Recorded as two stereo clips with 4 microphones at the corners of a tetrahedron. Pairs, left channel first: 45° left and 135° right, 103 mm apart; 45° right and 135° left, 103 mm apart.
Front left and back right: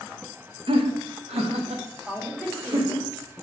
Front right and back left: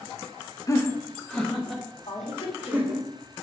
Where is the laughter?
100° right, 0.8 m; by 3.1 s 150° right, 2 m.